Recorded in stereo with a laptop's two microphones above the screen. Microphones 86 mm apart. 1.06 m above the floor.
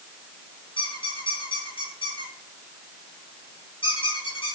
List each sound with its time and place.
0.8 s a squeak: 80° left, 5.5 m